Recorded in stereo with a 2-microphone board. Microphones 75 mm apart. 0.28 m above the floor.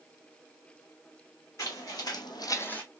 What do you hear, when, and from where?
1.6 s footsteps: 45° left (ahead or behind), 1.4 m; by 2.8 s 15° left (ahead or behind), 0.8 m